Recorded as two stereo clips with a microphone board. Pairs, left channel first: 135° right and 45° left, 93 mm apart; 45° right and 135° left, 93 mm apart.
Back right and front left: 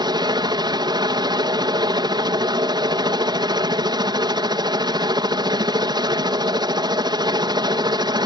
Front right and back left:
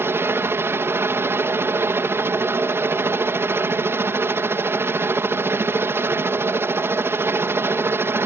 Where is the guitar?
I don't hear a guitar.